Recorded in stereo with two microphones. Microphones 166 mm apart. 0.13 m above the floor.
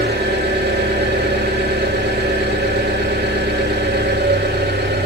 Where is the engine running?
90° right, 5.5 m.